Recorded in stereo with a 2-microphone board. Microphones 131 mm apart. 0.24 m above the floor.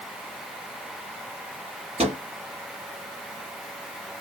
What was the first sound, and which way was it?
A microwave, 50° right (ahead or behind).